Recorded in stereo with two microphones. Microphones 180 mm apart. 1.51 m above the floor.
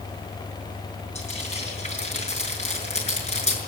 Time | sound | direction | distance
1.1 | frying | 35° left (ahead or behind) | 6.5 m